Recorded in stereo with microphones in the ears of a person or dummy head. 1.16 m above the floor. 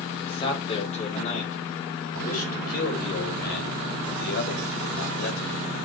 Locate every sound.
0.2 s a man speaking: 25° left (ahead or behind), 2.5 m; by 5.6 s 70° left (ahead or behind), 4 m